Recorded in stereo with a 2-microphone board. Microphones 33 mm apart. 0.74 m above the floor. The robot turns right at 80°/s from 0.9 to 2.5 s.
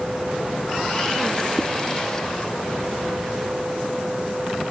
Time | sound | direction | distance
1.6 | a zipper | 50° left (ahead or behind) | ?